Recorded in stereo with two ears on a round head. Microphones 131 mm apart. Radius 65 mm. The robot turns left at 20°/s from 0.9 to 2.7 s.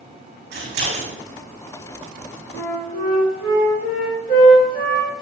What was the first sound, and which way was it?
Scissors, 55° right (ahead or behind).